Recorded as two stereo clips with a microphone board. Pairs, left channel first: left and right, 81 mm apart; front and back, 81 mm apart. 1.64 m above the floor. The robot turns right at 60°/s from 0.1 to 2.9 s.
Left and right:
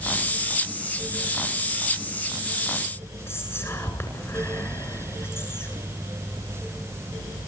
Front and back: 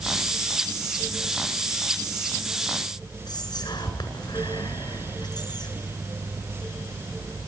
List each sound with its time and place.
3.3 s whispering: 30° left, 7.5 m